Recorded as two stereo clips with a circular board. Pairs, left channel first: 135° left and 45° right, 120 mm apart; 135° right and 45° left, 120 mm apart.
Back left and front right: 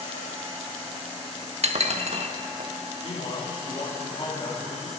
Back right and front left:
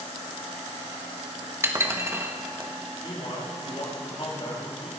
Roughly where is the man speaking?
Behind.